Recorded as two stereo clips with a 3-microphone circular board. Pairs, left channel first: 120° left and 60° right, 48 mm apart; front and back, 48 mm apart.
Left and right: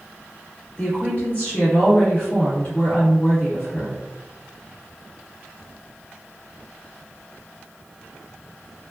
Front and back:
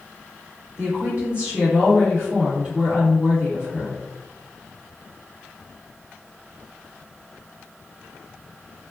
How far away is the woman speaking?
About 1.9 m.